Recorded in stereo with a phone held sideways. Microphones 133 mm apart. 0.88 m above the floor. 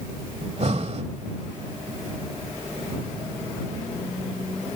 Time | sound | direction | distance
0.4 | breathing | 55° right (ahead or behind) | ?